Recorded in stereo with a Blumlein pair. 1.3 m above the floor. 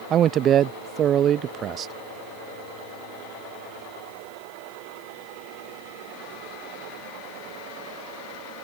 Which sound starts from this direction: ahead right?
A man speaking, at 0.1 s.